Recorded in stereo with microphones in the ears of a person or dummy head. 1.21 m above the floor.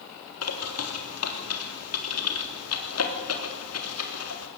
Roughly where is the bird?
Left.